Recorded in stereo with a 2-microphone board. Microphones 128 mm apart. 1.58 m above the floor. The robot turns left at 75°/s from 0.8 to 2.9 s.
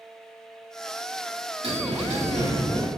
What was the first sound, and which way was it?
A bell, 55° right.